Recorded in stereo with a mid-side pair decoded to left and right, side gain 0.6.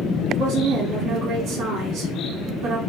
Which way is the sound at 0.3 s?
50° right.